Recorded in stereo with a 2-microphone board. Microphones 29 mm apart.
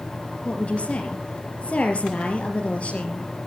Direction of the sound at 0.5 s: 45° left (ahead or behind).